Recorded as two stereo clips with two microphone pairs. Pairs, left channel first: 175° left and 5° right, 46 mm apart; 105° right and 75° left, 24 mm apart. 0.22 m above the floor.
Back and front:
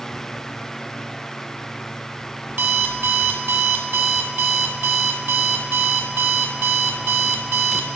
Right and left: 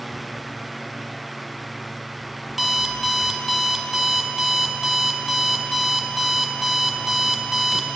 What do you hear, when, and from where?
2.5 s an alarm clock: 10° right, 0.8 m